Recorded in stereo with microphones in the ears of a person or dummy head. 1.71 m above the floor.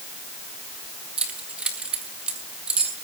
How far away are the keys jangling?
About 1.9 m.